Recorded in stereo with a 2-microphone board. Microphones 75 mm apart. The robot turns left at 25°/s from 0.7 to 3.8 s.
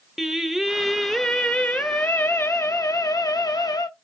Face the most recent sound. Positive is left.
turn(degrees=105)